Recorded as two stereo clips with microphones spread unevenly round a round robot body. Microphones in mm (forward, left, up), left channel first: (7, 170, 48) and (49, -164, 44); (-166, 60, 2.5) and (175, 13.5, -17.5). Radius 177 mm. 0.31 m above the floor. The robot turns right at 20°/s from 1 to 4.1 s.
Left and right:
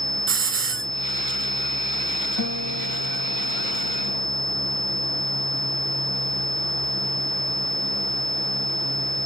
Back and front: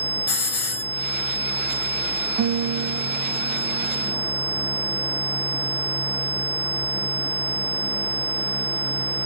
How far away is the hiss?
About 1.4 m.